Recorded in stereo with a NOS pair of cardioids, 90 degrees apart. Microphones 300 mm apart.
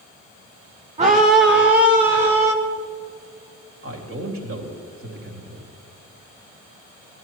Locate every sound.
1.0 s a scream: 20° right, 1.0 m; by 2.5 s 60° right, 1.4 m
3.8 s a man speaking: 45° right, 3 m